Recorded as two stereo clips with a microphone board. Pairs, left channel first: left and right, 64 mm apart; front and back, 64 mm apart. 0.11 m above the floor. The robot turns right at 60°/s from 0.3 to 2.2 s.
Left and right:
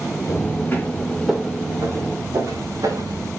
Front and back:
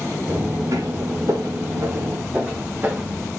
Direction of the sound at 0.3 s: 125° left.